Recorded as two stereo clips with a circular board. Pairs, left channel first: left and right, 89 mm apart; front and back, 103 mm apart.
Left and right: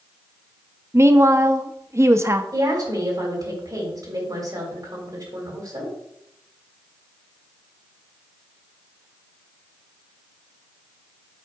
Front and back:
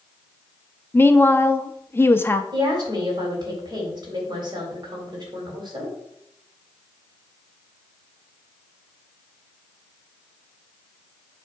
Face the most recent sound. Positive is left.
turn(degrees=-135)